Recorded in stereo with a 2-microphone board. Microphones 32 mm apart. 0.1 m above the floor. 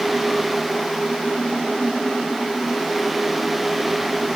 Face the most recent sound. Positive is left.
No sound to turn to.